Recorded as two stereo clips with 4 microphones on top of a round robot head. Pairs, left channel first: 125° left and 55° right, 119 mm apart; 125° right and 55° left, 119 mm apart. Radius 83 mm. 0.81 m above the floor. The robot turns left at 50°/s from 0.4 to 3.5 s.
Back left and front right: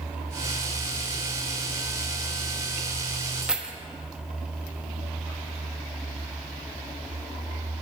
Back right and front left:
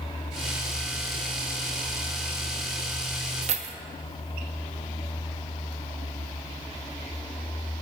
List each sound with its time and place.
3.4 s keys jangling: 30° left, 0.7 m